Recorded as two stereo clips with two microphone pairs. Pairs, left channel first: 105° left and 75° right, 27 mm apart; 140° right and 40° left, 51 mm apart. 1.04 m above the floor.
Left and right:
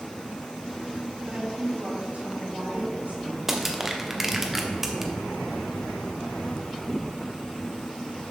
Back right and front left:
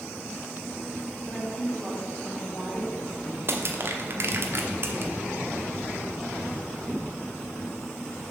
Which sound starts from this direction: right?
A woman speaking, at 1.3 s.